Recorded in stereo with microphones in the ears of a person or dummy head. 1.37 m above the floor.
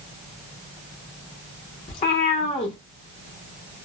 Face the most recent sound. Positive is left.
turn(degrees=30)  # may be behind; listen again after turning